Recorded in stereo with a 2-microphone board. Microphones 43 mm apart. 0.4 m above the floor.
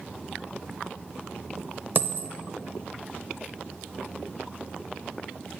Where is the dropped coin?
50° right (ahead or behind), 0.6 m.